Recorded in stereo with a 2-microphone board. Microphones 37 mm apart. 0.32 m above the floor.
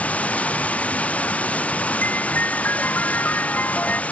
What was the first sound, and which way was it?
Running water, 35° left (ahead or behind).